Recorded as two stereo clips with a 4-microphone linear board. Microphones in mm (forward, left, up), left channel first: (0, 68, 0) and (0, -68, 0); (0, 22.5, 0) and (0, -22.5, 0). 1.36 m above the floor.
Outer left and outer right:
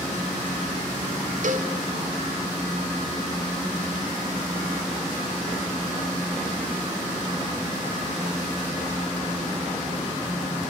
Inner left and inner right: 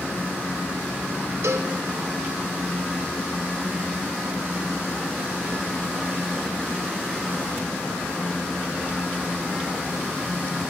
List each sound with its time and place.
1.4 s a cowbell: 65° right (ahead or behind), 0.7 m